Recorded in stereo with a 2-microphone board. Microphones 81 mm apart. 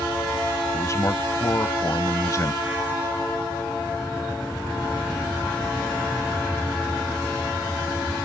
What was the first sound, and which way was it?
A man speaking, 40° left (ahead or behind).